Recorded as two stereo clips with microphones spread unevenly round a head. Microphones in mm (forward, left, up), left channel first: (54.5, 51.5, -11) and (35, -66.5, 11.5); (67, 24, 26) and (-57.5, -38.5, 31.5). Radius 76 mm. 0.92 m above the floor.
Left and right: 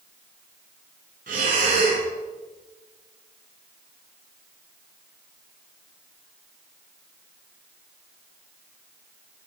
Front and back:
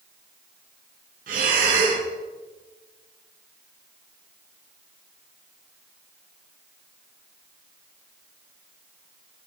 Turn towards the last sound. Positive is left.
turn(degrees=-130)